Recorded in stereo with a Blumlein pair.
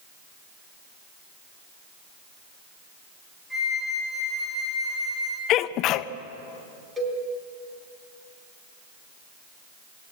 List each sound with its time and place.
3.5 s a flute: straight ahead, 5.5 m
5.5 s a sneeze: 35° left, 0.9 m
7.0 s a cowbell: 5° right, 4 m